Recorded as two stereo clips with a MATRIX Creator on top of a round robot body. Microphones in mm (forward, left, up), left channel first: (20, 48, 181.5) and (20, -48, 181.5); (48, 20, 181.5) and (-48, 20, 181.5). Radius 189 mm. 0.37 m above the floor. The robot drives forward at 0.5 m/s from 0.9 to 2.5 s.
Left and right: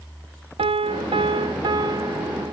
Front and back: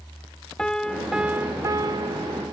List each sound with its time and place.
0.6 s a piano: 80° right, 0.6 m; by 2.5 s 145° right, 0.9 m